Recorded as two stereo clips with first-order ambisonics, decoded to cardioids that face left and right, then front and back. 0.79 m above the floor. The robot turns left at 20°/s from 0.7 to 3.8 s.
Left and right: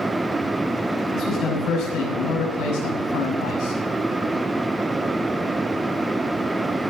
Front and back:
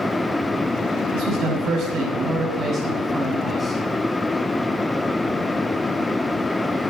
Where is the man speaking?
145° left, 6.5 m; by 3.8 s 95° left, 6.5 m.